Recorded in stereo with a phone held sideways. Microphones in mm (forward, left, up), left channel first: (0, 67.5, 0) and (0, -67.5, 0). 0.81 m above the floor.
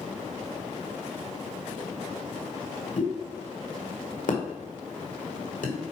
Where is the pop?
70° left (ahead or behind), 2.0 m.